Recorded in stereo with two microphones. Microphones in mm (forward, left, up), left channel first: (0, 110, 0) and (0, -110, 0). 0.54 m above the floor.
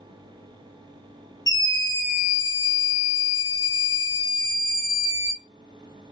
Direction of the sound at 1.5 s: 15° left (ahead or behind).